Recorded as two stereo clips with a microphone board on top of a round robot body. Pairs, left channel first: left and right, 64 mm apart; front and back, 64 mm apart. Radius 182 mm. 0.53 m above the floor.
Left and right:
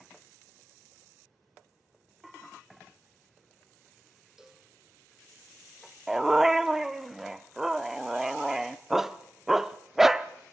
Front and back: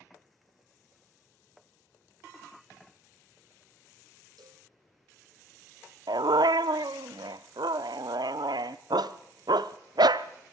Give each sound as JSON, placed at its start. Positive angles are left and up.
{"t": 4.4, "sound": "a cowbell", "azimuth_deg": -170, "distance_m": 1.7}
{"t": 6.1, "sound": "a dog barking", "azimuth_deg": -175, "distance_m": 0.6}